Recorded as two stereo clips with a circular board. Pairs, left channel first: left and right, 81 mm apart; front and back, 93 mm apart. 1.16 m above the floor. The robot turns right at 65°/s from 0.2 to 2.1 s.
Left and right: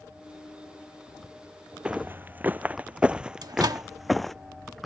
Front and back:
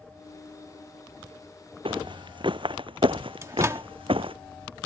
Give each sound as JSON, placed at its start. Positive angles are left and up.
{"t": 1.9, "sound": "footsteps", "azimuth_deg": -165}
{"t": 3.4, "sound": "a microwave", "azimuth_deg": -125}